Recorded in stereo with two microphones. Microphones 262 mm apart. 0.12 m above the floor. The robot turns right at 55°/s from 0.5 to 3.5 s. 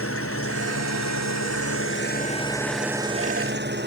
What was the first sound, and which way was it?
An engine running, 55° left.